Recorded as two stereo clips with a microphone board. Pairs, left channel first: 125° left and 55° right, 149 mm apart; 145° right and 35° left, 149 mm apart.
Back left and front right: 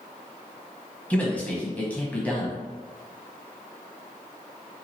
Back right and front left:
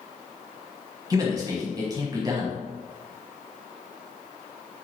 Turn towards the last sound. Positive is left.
turn(degrees=55)